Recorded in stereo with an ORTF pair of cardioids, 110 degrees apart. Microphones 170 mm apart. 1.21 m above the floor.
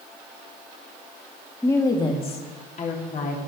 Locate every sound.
1.6 s a woman speaking: 15° left, 2.0 m; by 3.4 s 55° left, 3.5 m